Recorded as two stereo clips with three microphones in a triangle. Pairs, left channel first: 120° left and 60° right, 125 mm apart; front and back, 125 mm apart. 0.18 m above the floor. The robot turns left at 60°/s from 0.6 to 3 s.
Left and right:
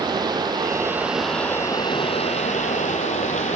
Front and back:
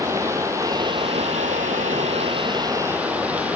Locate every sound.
0.0 s running water: 110° right, 0.8 m; by 3.6 s 105° left, 0.8 m